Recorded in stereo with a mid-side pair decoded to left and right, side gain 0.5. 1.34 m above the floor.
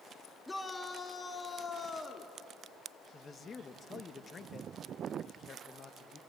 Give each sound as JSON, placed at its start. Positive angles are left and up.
{"t": 0.5, "sound": "a shout", "azimuth_deg": 10, "distance_m": 2.0}
{"t": 3.1, "sound": "a man speaking", "azimuth_deg": 35, "distance_m": 1.4}